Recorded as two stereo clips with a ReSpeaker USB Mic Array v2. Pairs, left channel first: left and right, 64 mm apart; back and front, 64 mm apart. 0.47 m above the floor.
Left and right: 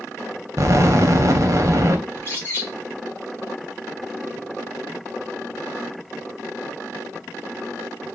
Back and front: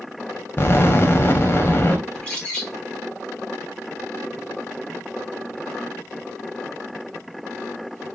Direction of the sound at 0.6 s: 130° right.